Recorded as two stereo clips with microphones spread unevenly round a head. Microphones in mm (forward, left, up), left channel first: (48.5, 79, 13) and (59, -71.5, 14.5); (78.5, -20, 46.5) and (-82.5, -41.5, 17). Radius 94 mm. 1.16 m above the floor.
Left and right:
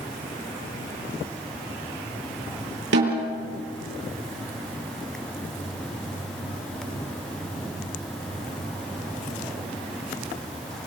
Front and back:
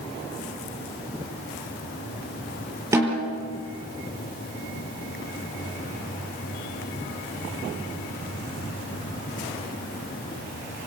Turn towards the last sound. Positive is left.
turn(degrees=-100)